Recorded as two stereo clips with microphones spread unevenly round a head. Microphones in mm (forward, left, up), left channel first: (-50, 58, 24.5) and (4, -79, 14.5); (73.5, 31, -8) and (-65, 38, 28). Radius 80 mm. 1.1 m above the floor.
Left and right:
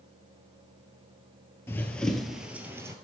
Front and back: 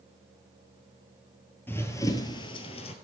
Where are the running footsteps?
90° left, 1.1 m; by 2.9 s 10° right, 1.1 m.